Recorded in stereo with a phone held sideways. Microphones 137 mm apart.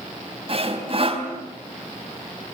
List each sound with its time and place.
0.5 s sawing: 45° right (ahead or behind), 3.5 m